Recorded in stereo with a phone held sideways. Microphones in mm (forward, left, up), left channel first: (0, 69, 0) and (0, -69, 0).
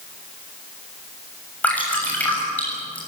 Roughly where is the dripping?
Centre.